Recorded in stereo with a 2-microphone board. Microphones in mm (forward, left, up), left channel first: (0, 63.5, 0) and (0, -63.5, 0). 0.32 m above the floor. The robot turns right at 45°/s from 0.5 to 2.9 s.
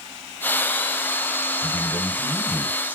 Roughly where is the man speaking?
Behind left.